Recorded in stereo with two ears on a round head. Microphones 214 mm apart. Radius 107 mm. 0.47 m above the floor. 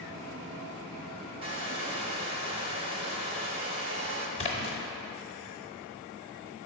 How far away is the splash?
About 0.9 m.